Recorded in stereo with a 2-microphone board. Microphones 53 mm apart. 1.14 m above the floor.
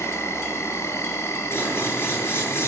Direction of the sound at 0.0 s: 65° left (ahead or behind).